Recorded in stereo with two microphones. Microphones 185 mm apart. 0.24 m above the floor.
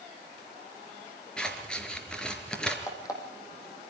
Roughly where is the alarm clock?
Centre.